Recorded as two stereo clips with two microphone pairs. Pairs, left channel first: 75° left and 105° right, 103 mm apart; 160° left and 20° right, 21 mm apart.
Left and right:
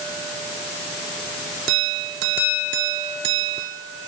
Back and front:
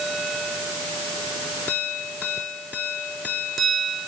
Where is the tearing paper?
No tearing paper in this recording.